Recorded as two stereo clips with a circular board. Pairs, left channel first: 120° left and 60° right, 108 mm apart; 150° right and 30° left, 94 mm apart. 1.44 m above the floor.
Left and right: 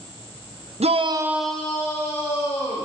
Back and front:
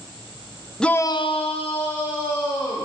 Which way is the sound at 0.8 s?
65° right.